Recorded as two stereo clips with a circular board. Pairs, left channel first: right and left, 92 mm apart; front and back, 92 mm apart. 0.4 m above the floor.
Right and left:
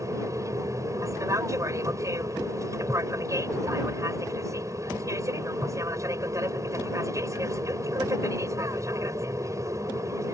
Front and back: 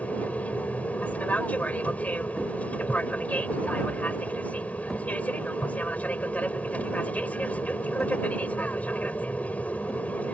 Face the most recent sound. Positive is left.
turn(degrees=65)